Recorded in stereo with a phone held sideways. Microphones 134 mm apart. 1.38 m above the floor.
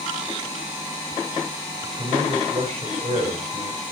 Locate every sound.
1.8 s a man speaking: 55° right (ahead or behind), 5 m